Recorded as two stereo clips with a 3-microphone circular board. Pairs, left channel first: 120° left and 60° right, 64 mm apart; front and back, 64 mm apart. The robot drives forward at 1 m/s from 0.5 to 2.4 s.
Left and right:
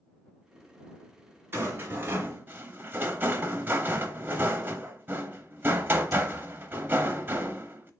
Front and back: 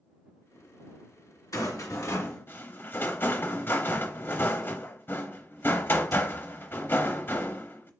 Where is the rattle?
10° right, 1.4 m; by 7.9 s 30° right, 0.7 m.